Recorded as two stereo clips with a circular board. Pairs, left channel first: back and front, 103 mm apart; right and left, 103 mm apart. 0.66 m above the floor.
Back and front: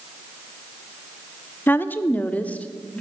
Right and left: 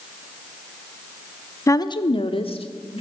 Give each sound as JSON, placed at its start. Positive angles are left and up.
{"t": 1.7, "sound": "a woman speaking", "azimuth_deg": -125, "distance_m": 0.6}